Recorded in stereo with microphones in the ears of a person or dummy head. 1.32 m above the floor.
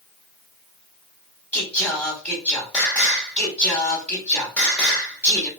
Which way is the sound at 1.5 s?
15° left (ahead or behind).